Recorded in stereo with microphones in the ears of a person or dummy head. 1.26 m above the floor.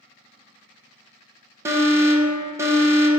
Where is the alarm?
20° right (ahead or behind), 1.1 m.